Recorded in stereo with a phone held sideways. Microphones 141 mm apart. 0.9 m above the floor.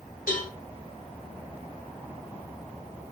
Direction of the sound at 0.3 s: 85° left.